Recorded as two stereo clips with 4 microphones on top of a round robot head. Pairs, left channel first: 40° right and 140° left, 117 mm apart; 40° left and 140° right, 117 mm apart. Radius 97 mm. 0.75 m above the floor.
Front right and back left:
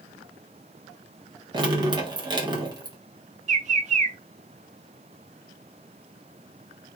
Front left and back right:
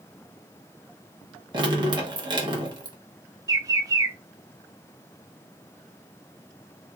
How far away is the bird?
About 0.6 m.